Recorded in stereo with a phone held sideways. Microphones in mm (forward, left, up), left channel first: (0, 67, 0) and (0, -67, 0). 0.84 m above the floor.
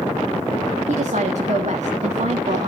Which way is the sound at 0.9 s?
60° right (ahead or behind).